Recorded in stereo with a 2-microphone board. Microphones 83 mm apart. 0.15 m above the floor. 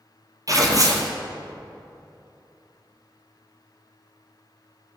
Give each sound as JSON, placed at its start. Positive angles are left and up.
{"t": 0.5, "sound": "tearing paper", "side_deg": -45, "distance_m": 1.4}